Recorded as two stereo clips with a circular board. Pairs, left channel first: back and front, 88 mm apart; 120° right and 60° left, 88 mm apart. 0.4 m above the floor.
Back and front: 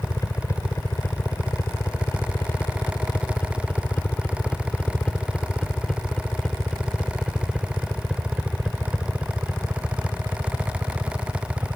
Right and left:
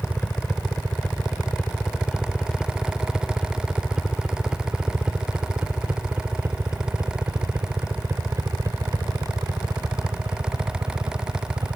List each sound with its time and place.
0.0 s a helicopter: straight behind; by 11.8 s 60° left